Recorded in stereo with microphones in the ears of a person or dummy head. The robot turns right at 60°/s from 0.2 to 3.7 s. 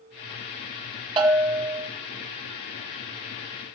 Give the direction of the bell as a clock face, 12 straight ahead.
1 o'clock.